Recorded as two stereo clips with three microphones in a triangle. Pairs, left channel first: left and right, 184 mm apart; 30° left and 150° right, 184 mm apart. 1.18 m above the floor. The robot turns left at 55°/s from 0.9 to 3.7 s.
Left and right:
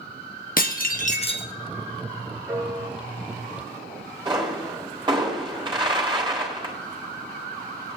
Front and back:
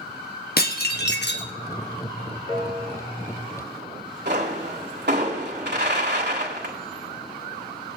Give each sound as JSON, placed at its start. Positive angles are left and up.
{"t": 0.6, "sound": "dishes clattering", "azimuth_deg": 55, "distance_m": 1.3}
{"t": 2.5, "sound": "a piano", "azimuth_deg": -10, "distance_m": 5.5}
{"t": 4.2, "sound": "a pop", "azimuth_deg": -155, "distance_m": 4.0}